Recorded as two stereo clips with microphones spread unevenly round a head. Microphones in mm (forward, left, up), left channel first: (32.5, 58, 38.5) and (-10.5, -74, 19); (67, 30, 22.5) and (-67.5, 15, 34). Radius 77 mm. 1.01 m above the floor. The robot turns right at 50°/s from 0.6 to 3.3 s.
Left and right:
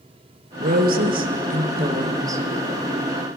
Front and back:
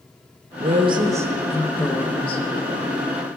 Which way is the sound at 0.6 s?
130° right.